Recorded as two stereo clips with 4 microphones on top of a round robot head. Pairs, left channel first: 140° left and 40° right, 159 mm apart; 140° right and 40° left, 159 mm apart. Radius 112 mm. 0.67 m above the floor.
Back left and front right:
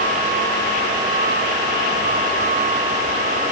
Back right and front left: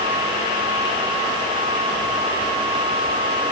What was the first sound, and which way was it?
Only background noise.